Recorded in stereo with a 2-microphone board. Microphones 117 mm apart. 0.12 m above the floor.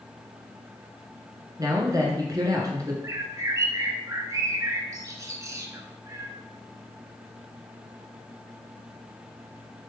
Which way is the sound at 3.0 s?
30° right (ahead or behind).